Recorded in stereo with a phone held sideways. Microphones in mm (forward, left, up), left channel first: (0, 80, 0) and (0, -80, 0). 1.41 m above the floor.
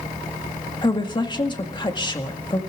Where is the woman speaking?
30° left (ahead or behind), 1.9 m.